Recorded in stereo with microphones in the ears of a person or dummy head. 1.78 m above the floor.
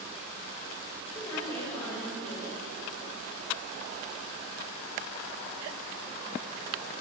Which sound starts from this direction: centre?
A woman speaking, at 1.1 s.